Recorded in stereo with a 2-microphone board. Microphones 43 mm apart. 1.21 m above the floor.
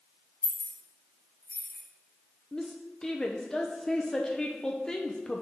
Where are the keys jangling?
20° left (ahead or behind), 3 m.